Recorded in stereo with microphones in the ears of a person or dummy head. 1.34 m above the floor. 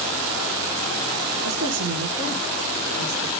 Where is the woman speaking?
60° right (ahead or behind), 1.1 m; by 3.3 s 80° right, 2 m.